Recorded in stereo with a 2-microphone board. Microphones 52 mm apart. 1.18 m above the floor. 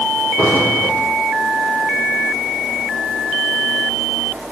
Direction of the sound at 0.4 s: 40° left (ahead or behind).